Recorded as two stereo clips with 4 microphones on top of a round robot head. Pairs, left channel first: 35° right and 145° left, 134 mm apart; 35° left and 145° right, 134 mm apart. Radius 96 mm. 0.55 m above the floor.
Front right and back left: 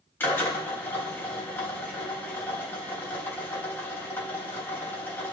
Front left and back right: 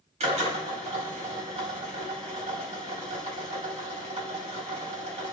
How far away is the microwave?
I don't hear a microwave.